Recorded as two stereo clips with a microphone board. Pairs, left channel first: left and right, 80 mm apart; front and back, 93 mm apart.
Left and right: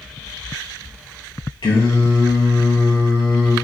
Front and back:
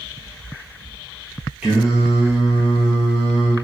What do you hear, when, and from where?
1.6 s singing: 100° left, 1.8 m